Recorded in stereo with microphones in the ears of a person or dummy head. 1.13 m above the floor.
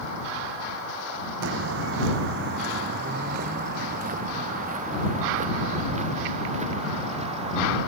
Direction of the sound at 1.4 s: 75° right (ahead or behind).